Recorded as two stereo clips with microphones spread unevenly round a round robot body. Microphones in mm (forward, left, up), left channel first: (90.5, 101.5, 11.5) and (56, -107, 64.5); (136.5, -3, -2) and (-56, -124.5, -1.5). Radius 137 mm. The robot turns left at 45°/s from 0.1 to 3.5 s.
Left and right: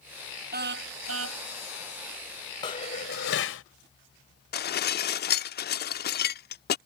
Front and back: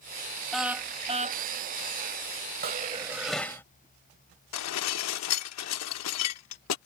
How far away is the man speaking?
I don't hear a man speaking.